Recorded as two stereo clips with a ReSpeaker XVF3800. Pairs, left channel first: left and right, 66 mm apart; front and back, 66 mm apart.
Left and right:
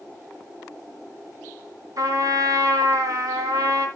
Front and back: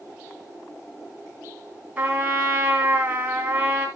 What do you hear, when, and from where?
2.0 s a trumpet: 115° right, 3 m